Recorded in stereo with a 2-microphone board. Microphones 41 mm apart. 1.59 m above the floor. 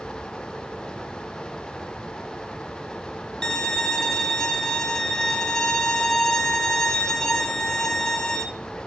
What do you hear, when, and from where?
3.4 s a violin: 15° left (ahead or behind), 1.9 m